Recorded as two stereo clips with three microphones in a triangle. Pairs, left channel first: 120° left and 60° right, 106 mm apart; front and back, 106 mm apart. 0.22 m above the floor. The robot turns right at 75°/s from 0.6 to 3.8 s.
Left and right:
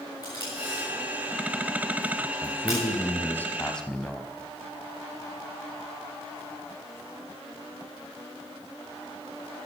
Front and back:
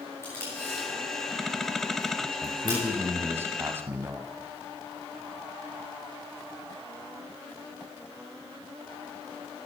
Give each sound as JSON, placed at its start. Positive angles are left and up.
{"t": 0.2, "sound": "tape being pulled", "azimuth_deg": 65, "distance_m": 7.0}
{"t": 2.4, "sound": "a man speaking", "azimuth_deg": 85, "distance_m": 1.0}